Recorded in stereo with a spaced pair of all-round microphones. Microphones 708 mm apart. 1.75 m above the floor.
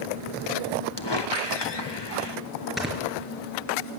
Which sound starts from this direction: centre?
Snoring, at 2.8 s.